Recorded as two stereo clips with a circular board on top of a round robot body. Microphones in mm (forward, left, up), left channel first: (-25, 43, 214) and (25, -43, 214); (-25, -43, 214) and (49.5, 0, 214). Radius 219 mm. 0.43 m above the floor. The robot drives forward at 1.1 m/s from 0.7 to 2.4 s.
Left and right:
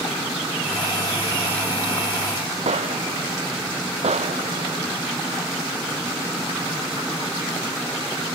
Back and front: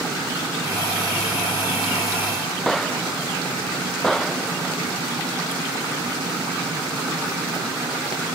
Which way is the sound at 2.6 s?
65° right.